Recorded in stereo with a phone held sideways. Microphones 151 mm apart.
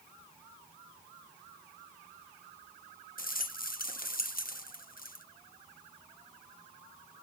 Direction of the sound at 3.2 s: 70° left (ahead or behind).